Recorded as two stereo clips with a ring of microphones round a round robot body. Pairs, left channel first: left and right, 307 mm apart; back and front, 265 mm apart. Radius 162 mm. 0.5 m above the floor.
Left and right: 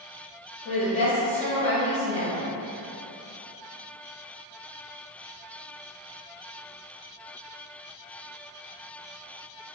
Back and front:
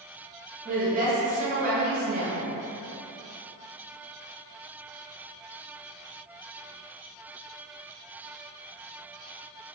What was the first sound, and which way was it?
A woman speaking, 30° left.